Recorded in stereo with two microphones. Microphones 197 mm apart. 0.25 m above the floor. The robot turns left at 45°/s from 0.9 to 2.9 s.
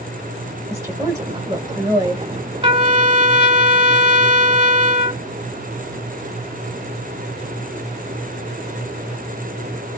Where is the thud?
No thud in this recording.